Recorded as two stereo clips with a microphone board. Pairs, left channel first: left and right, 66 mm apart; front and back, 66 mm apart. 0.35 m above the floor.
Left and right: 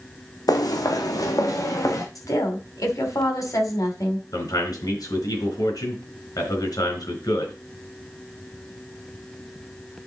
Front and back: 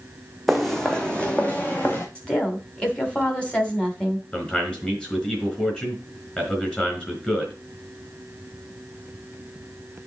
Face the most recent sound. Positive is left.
turn(degrees=75)